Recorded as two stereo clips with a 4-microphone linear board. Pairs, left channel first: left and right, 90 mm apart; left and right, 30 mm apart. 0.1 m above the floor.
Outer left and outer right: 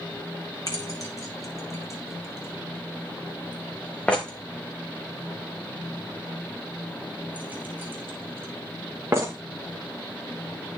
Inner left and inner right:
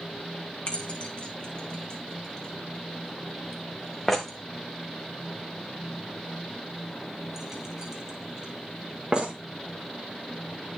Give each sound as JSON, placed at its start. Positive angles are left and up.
{"t": 0.7, "sound": "keys jangling", "side_deg": 40, "distance_m": 4.5}